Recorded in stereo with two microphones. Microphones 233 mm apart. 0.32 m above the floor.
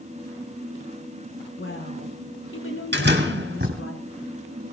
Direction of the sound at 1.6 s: 65° left (ahead or behind).